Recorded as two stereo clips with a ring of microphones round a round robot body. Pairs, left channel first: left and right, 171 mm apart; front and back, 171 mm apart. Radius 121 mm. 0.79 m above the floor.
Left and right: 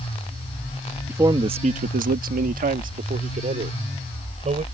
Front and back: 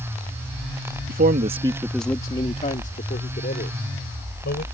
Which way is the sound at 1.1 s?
170° right.